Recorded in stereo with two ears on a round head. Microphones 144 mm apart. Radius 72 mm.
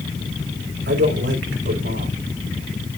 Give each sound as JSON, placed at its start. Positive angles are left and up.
{"t": 0.9, "sound": "a man speaking", "side_deg": -70, "distance_m": 4.0}